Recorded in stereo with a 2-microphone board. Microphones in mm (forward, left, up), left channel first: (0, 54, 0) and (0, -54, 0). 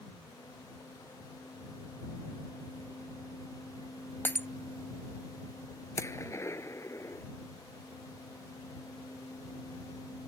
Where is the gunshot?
25° left (ahead or behind).